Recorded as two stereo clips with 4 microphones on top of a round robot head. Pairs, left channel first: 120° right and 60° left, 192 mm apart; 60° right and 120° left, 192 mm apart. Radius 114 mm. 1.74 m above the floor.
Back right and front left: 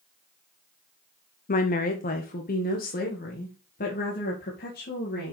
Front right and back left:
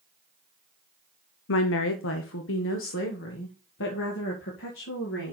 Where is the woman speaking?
75° right, 0.8 m; by 5.3 s 80° right, 3 m.